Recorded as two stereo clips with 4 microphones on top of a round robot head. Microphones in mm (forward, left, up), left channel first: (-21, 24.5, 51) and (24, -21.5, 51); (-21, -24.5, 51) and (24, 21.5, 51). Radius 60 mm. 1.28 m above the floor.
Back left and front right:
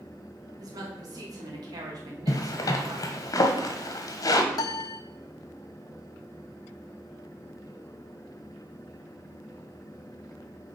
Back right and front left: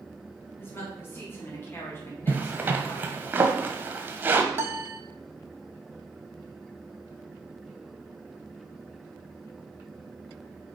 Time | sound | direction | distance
0.6 | a woman speaking | 75° right | 2.5 m
2.3 | a zipper | 110° left | 1.2 m
4.5 | a piano | 105° left | 0.5 m